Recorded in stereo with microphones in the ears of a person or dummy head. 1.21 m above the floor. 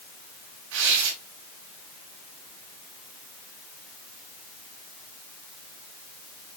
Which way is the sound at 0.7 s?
65° right (ahead or behind).